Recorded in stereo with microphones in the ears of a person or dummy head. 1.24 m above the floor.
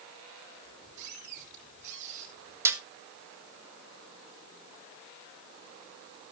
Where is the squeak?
60° right (ahead or behind), 8 m.